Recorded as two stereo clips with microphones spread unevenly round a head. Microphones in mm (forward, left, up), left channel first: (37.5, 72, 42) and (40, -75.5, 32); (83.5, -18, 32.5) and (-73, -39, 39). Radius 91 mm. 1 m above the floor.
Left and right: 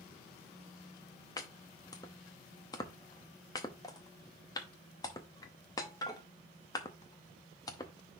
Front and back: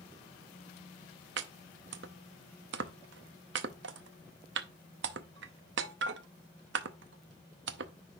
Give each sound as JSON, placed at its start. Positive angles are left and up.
{"t": 1.4, "sound": "chopping", "azimuth_deg": 160, "distance_m": 0.6}